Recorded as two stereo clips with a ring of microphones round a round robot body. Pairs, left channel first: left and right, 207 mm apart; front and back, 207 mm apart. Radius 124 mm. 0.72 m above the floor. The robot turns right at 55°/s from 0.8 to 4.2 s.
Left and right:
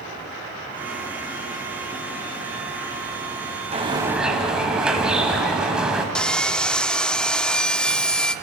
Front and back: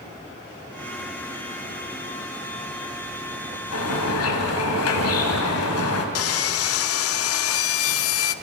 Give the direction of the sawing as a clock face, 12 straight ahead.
12 o'clock.